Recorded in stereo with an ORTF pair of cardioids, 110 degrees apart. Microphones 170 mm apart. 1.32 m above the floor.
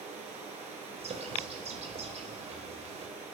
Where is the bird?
40° right, 4.5 m.